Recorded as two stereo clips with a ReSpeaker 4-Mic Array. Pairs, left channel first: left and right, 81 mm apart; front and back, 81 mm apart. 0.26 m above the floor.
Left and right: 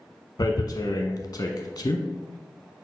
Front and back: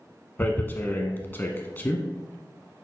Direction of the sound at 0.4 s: 60° left.